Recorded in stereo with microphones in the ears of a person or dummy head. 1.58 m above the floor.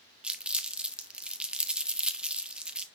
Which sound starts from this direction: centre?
Crumpling, at 0.2 s.